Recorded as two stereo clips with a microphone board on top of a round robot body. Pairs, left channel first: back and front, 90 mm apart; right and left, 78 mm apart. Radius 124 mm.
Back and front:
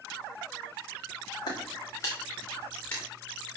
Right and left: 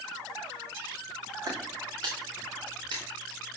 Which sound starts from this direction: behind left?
Footsteps, at 1.5 s.